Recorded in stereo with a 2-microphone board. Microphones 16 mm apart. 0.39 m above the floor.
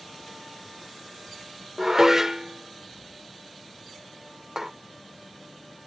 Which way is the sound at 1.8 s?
25° right (ahead or behind).